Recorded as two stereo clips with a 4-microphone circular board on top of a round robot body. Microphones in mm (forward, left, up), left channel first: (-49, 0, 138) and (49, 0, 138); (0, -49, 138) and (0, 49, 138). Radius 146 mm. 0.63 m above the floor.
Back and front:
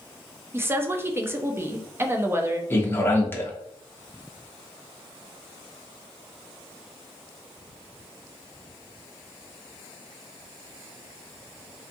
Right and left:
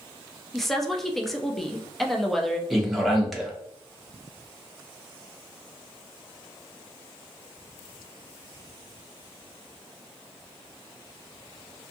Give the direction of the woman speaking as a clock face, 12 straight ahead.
12 o'clock.